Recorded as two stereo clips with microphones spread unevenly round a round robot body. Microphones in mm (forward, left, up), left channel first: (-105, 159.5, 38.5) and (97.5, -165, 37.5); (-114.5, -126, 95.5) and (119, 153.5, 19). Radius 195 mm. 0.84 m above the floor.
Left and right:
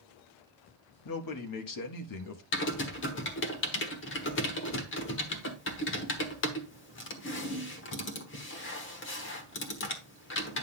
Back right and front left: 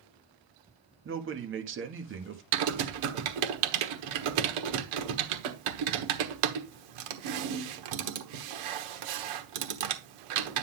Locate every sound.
1.1 s a man speaking: 90° left, 1.3 m
2.5 s typing on a keyboard: 60° left, 1.2 m